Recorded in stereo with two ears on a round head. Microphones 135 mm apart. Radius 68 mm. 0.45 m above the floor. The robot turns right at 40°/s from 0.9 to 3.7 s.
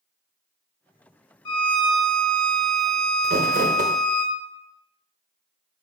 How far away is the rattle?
No rattle in this recording.